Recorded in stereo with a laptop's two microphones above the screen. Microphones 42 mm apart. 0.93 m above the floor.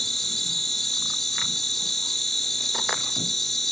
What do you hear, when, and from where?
0.0 s an insect: 5° left (ahead or behind)